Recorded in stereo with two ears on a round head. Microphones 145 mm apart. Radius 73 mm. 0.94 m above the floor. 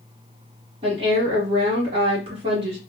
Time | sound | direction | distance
0.8 | a woman speaking | 35° right (ahead or behind) | 1.3 m